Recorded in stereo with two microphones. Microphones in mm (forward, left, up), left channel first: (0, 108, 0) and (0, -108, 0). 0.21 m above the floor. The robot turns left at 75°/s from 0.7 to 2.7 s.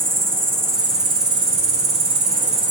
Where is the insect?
10° right, 0.8 m; by 2.7 s 160° right, 0.8 m.